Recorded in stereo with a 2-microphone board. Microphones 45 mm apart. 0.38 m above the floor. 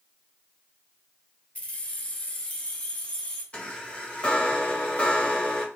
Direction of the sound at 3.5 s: 25° left (ahead or behind).